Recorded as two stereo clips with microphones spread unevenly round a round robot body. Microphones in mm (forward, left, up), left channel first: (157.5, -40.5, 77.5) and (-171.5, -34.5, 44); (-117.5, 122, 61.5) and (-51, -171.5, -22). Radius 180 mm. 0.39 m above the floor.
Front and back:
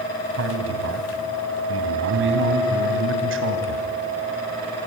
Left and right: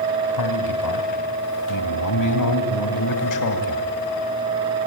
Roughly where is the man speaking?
Behind left.